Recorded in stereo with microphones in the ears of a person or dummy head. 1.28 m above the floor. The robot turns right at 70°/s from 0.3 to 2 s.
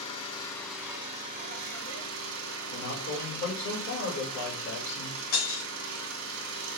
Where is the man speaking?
55° left (ahead or behind), 2.0 m.